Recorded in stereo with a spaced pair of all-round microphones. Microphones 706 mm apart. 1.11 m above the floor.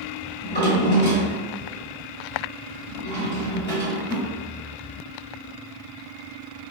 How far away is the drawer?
About 1.1 m.